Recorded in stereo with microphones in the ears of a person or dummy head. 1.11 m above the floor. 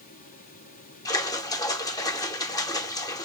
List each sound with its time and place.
1.1 s a splash: 25° left (ahead or behind), 0.7 m